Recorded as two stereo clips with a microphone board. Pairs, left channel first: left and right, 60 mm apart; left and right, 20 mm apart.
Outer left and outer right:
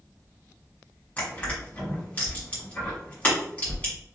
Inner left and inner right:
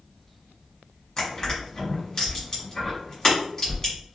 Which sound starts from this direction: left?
Crushing, at 1.2 s.